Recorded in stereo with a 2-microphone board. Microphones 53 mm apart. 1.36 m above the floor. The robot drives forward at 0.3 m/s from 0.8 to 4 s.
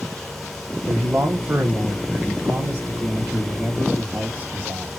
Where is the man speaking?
55° right (ahead or behind), 0.8 m; by 4.9 s 25° right (ahead or behind), 1.5 m.